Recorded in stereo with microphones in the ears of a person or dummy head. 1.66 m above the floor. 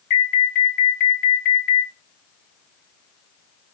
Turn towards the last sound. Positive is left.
turn(degrees=45)  # may be behind; listen again after turning